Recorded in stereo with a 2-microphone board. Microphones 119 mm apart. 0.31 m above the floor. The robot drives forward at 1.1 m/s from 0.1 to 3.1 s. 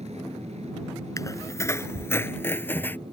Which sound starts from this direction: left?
A squeak, at 1.2 s.